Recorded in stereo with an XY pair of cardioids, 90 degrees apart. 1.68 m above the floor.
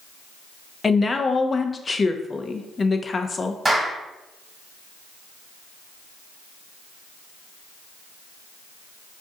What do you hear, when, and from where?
0.8 s a woman speaking: 35° left, 0.6 m
3.6 s a clap: 20° right, 1.5 m